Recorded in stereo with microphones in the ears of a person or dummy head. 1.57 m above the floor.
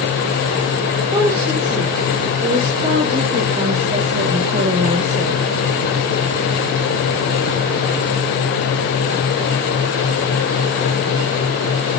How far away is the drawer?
No drawer in this recording.